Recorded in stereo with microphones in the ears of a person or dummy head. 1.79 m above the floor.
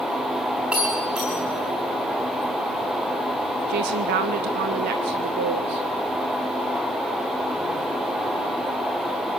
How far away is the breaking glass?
About 3.5 m.